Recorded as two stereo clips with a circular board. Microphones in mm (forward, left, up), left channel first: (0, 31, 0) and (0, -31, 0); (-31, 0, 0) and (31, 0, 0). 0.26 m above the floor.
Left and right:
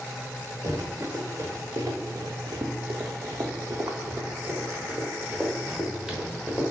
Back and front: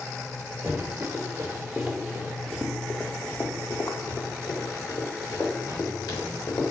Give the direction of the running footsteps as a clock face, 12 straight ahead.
2 o'clock.